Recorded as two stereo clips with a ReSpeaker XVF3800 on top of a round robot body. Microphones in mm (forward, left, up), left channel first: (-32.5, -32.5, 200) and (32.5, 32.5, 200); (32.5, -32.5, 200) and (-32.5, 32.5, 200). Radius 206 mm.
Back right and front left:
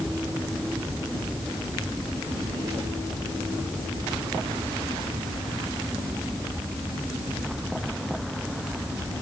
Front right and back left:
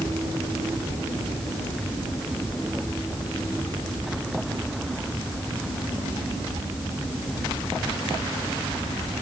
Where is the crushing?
I don't hear crushing.